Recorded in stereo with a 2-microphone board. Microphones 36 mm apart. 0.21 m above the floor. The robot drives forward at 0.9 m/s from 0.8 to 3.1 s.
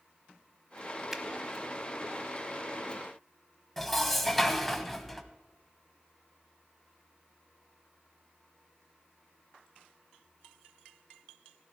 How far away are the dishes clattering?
About 0.9 m.